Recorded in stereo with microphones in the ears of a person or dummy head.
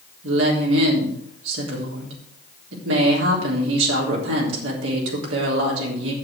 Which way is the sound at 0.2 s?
85° right.